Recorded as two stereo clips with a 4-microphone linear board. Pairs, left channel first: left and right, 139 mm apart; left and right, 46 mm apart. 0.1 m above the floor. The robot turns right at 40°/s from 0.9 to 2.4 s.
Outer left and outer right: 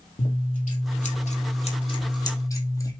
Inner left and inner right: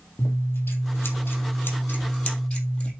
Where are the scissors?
95° left, 3 m; by 2.9 s 155° left, 3 m.